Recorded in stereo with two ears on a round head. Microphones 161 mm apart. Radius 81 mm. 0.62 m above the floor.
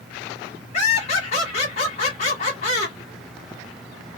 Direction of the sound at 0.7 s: 35° left (ahead or behind).